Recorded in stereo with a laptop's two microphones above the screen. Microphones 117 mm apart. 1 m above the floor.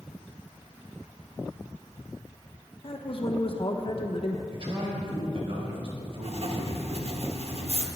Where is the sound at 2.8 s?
50° left (ahead or behind), 1.1 m.